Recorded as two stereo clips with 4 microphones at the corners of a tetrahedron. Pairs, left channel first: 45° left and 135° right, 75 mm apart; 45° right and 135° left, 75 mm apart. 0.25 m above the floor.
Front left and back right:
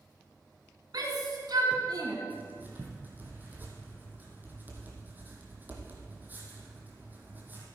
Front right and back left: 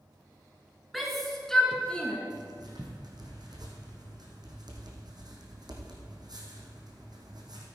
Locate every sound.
0.9 s a shout: 135° right, 2.5 m; by 2.2 s 120° right, 2 m
2.3 s writing: 160° left, 2.5 m